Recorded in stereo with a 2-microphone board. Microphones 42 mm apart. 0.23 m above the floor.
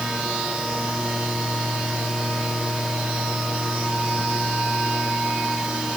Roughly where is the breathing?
I don't hear breathing.